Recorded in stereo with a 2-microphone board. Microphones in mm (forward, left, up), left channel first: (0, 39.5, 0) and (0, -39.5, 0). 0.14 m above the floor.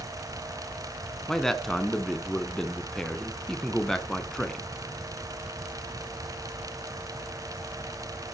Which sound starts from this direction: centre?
A man speaking, at 1.3 s.